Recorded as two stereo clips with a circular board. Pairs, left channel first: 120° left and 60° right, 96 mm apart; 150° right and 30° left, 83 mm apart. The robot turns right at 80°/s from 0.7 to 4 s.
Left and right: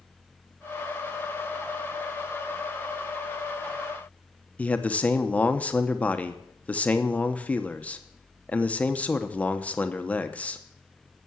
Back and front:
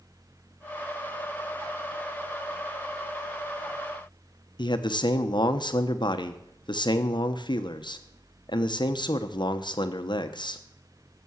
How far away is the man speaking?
About 1.0 m.